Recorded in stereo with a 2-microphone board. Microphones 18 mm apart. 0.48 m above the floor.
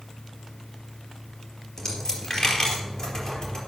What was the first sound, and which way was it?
A dropped coin, 45° left (ahead or behind).